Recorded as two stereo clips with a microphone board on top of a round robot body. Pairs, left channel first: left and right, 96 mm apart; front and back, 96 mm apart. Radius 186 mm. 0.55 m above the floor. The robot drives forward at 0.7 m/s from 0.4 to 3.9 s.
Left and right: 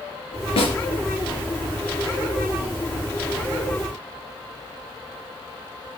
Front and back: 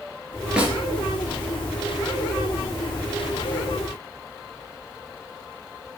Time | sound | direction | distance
0.6 | a snare drum | 100° left | 3 m